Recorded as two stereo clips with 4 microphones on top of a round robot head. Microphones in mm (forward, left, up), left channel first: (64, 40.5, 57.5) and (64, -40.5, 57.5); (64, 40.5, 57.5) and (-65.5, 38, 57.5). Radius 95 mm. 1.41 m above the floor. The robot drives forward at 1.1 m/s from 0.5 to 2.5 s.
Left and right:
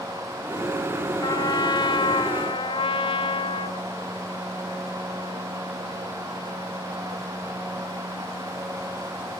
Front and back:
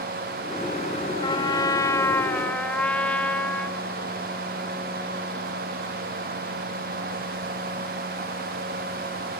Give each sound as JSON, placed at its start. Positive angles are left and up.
{"t": 1.2, "sound": "a trumpet", "azimuth_deg": 55}